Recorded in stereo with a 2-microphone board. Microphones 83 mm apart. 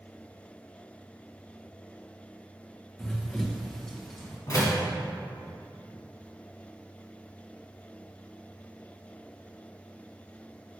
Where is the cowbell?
No cowbell in this recording.